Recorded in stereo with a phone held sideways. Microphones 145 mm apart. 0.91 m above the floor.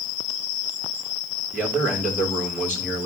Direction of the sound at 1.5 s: 15° right (ahead or behind).